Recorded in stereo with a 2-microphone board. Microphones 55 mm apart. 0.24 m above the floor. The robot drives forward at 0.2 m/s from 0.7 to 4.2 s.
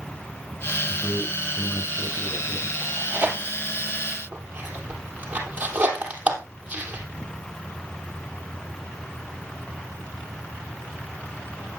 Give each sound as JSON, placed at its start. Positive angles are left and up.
{"t": 0.9, "sound": "a man speaking", "side_deg": 45, "distance_m": 3.5}
{"t": 2.8, "sound": "tearing paper", "side_deg": -30, "distance_m": 3.0}